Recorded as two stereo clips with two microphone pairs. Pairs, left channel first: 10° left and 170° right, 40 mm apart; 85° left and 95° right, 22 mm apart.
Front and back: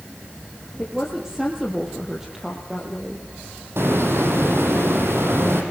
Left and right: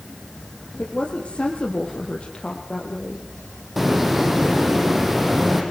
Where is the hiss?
175° right, 6 m.